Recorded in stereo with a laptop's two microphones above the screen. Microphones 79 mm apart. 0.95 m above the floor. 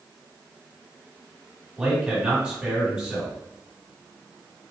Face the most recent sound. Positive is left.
turn(degrees=-10)  # may be behind; listen again after turning